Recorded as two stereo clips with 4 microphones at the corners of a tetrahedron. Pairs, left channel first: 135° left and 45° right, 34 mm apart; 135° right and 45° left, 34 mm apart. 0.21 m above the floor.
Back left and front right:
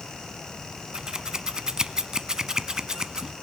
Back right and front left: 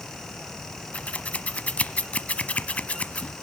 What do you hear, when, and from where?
0.9 s scissors: 110° right, 0.9 m